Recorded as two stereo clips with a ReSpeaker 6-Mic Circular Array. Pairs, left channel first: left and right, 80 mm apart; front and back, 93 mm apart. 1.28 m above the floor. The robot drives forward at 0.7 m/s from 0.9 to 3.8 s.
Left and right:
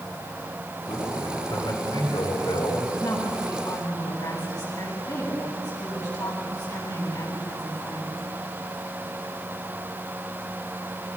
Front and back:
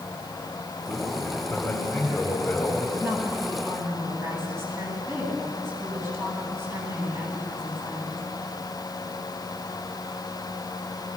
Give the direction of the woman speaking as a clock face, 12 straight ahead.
8 o'clock.